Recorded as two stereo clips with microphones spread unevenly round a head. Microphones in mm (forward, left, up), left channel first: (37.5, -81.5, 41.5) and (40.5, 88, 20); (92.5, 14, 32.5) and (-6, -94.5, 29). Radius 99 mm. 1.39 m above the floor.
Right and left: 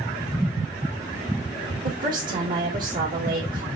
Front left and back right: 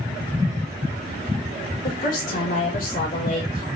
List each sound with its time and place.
1.8 s a woman speaking: 55° left, 2.5 m